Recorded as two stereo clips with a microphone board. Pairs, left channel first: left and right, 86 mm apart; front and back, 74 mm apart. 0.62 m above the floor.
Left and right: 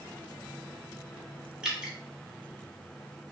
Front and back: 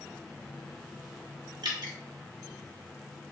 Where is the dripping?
170° right, 0.7 m.